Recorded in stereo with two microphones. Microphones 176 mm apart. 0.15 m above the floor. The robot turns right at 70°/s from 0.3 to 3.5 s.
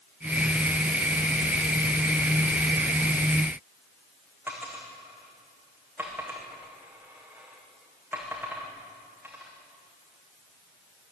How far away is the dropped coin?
About 4.5 m.